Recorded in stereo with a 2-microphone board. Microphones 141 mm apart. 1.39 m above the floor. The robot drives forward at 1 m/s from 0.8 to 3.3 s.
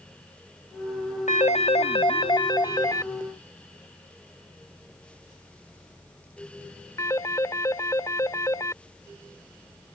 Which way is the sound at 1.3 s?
55° left (ahead or behind).